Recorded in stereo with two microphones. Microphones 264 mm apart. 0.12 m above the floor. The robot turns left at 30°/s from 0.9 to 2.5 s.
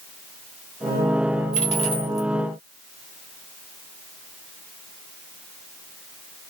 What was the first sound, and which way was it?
A dropped coin, 30° left (ahead or behind).